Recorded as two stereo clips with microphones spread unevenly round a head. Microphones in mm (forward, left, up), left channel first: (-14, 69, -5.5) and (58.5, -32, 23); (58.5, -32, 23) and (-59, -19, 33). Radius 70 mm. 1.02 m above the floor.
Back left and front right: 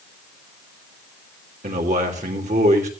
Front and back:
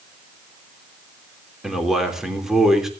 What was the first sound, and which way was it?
A man speaking, 100° right.